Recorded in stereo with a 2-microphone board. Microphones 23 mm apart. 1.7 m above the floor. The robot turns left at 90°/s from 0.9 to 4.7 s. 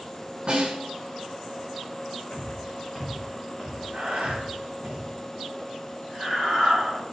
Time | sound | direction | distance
0.5 | a snare drum | 45° right (ahead or behind) | 7 m
2.3 | footsteps | 75° left (ahead or behind) | 6.5 m
3.9 | breathing | 45° right (ahead or behind) | 6.5 m